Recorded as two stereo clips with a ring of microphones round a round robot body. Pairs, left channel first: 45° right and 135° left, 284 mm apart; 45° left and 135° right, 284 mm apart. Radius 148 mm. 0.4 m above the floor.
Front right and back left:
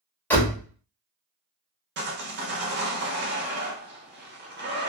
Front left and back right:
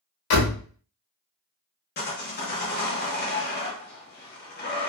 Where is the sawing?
95° left, 0.9 m.